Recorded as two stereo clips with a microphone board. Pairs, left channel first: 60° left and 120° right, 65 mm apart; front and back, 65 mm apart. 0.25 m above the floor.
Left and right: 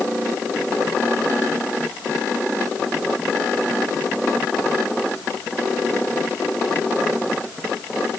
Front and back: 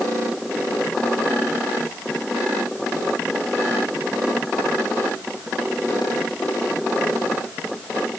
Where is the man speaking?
No man speaking in this recording.